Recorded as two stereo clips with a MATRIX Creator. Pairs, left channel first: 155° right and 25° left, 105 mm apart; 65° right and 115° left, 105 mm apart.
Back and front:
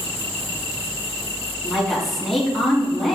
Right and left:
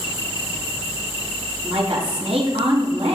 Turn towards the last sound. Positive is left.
turn(degrees=115)